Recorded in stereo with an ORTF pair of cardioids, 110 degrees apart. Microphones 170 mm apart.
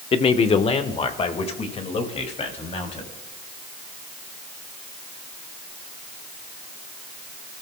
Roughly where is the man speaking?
Ahead left.